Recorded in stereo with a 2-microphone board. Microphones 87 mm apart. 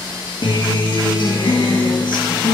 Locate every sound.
0.4 s a guitar: 60° left (ahead or behind), 2.5 m